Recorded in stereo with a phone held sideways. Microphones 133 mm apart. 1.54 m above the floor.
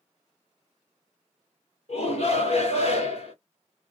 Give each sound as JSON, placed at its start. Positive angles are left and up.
{"t": 1.9, "sound": "a shout", "side_deg": 55, "distance_m": 1.7}